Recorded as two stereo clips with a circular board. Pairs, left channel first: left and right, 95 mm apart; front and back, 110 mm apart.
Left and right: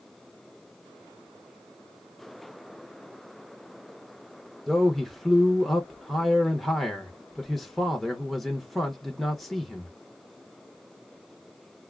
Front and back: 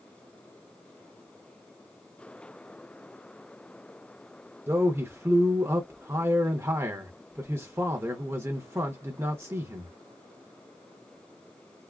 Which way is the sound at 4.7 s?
Straight behind.